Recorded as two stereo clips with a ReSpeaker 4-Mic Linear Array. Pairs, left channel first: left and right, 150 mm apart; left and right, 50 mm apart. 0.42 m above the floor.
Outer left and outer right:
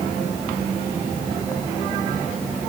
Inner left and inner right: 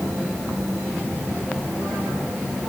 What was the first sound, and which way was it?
Only background noise.